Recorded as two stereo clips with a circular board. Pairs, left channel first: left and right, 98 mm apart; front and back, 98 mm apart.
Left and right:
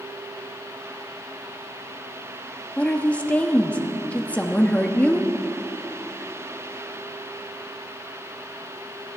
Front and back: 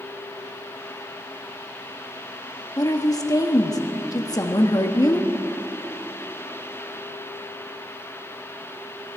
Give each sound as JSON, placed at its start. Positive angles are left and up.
{"t": 2.8, "sound": "a woman speaking", "azimuth_deg": 25, "distance_m": 1.0}